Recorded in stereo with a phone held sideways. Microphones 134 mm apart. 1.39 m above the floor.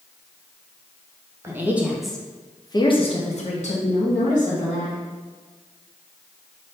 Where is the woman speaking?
20° right (ahead or behind), 0.9 m; by 5.0 s 70° left (ahead or behind), 1.5 m.